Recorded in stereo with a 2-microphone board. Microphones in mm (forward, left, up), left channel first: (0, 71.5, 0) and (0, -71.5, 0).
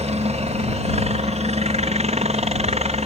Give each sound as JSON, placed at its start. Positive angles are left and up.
{"t": 0.0, "sound": "a helicopter", "side_deg": -50}